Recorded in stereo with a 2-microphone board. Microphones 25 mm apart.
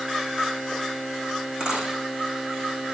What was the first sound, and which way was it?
A dropped coin, 35° right (ahead or behind).